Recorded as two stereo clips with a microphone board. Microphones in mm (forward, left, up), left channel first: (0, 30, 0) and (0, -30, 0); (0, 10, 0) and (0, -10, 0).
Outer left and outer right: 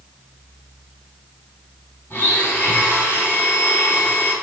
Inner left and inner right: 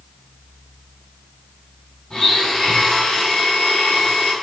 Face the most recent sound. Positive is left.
turn(degrees=40)  # may be behind; listen again after turning